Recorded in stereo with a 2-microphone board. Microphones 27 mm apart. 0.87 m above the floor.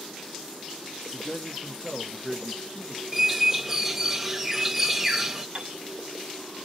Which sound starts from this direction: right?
A piano, at 5.5 s.